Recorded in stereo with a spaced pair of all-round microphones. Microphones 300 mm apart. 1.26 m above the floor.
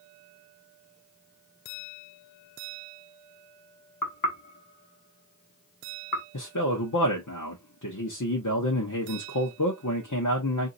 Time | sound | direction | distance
4.0 | knocking | 80° left | 1.4 m
6.3 | a man speaking | 65° left (ahead or behind) | 1.1 m